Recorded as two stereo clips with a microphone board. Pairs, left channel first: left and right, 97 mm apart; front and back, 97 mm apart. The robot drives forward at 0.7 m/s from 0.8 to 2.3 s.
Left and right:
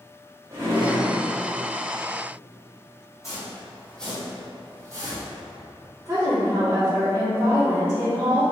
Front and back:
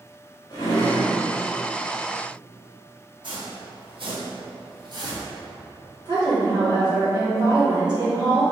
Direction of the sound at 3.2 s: 145° left.